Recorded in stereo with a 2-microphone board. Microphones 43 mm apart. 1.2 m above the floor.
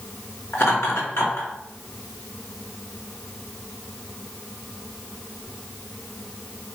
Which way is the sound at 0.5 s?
85° left.